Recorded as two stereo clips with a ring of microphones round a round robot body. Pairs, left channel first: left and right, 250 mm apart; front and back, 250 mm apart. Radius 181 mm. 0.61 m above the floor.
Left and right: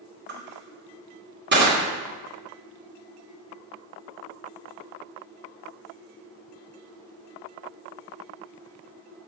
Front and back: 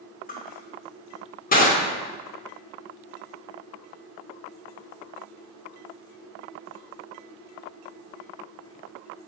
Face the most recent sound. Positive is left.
turn(degrees=-50)